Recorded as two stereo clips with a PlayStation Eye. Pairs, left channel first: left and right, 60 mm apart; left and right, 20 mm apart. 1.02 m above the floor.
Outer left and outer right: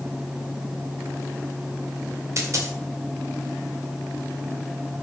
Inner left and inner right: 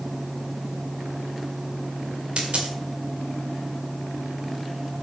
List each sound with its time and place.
2.4 s a dropped coin: 55° right (ahead or behind), 1.7 m